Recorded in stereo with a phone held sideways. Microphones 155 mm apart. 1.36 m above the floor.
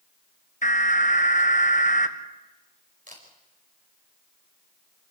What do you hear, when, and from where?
0.6 s an alarm: 55° left (ahead or behind), 1.6 m
3.1 s a camera shutter: 55° right (ahead or behind), 5 m